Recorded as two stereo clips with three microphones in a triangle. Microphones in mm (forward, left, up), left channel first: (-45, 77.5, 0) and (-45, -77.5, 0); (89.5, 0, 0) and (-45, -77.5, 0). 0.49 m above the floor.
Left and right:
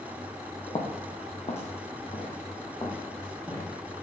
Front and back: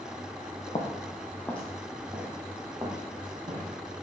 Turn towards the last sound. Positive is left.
turn(degrees=155)